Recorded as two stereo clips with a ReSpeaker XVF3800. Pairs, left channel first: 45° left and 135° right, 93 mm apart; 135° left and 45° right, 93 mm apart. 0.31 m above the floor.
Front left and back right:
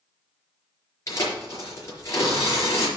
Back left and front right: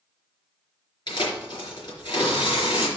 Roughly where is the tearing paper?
Left.